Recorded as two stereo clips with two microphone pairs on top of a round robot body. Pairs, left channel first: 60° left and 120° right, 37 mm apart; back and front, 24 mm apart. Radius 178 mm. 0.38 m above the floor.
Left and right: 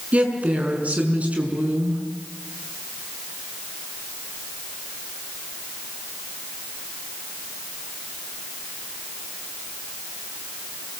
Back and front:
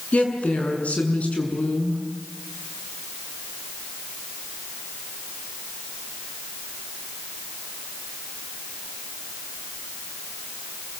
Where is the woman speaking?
175° right, 6.5 m.